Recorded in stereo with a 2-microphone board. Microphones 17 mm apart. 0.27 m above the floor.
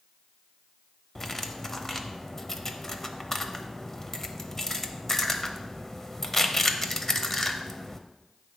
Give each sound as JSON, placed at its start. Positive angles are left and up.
{"t": 1.1, "sound": "cutlery clinking", "side_deg": 15, "distance_m": 0.5}